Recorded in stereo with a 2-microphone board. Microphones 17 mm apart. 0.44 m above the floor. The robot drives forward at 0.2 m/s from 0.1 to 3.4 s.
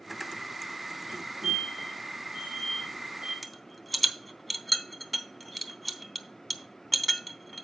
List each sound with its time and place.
1.1 s a fire alarm: 35° right (ahead or behind), 3.5 m; by 3.3 s 30° right (ahead or behind), 4 m
3.4 s a rattle: centre (ahead or behind), 0.9 m